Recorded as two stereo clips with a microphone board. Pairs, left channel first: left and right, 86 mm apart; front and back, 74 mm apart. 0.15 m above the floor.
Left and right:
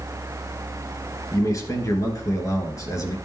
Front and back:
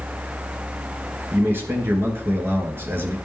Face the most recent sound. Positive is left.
turn(degrees=130)